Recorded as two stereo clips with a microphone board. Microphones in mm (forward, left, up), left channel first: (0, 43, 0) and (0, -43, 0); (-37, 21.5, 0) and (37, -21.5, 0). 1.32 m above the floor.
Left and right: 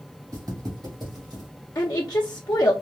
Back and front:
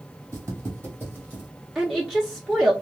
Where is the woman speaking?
55° left, 0.6 m.